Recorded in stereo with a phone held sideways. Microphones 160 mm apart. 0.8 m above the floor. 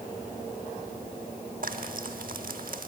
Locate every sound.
1.6 s frying: 65° right (ahead or behind), 0.8 m